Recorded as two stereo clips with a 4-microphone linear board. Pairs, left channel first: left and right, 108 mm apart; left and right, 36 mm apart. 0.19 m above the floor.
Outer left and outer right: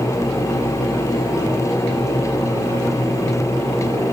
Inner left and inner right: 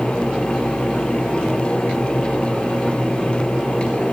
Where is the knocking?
No knocking in this recording.